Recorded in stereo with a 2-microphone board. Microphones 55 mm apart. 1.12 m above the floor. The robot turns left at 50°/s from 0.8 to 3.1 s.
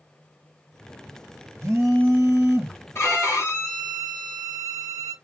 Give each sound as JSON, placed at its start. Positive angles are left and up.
{"t": 1.6, "sound": "a phone buzzing", "azimuth_deg": -75, "distance_m": 1.1}
{"t": 3.0, "sound": "a violin", "side_deg": 50, "distance_m": 1.3}